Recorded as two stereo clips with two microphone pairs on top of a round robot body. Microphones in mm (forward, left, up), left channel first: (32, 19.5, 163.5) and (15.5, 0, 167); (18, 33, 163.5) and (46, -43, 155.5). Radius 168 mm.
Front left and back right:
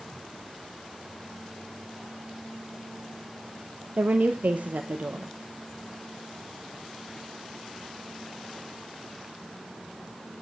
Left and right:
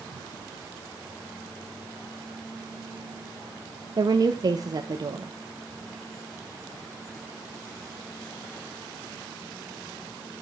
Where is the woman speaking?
110° right, 0.7 m.